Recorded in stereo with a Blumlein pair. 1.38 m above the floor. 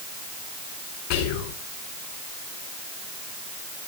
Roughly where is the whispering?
Ahead left.